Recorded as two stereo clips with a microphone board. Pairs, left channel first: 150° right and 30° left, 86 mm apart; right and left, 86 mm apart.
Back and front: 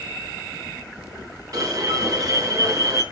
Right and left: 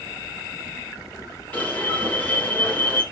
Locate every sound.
1.5 s an alarm: 20° right, 5.5 m